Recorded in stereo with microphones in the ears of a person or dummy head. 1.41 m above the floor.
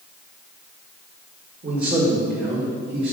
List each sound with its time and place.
1.6 s a man speaking: 45° right (ahead or behind), 1.7 m; by 3.1 s 60° right (ahead or behind), 2.5 m